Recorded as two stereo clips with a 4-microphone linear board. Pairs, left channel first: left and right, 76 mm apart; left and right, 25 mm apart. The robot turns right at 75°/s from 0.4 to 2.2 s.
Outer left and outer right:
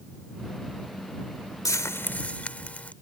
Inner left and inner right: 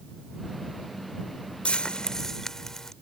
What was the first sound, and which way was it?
Frying, 115° left.